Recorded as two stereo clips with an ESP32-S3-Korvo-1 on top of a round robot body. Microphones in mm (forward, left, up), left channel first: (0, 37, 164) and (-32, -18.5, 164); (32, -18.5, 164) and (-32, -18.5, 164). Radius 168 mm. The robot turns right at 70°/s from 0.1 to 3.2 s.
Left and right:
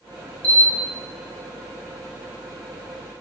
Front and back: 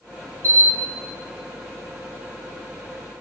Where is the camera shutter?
135° left, 2.5 m; by 0.7 s 150° left, 2.5 m.